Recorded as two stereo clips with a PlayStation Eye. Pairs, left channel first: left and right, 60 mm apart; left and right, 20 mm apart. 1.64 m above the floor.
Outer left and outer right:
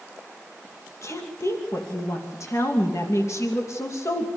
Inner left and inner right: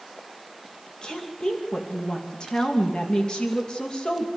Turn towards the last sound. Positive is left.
turn(degrees=50)  # may be behind; listen again after turning